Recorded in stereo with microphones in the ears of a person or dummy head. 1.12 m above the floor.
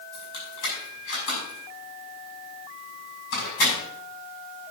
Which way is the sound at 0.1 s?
75° left (ahead or behind).